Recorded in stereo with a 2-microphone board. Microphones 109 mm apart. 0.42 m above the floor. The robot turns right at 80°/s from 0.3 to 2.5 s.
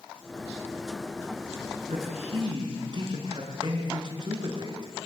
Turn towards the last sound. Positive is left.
turn(degrees=-45)